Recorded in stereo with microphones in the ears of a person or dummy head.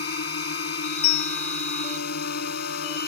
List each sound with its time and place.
0.0 s a drone: 55° left (ahead or behind)
1.0 s a bell: 75° left (ahead or behind)